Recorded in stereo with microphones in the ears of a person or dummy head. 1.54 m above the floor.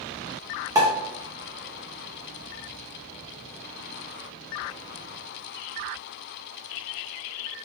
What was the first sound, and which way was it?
A pop, 15° right (ahead or behind).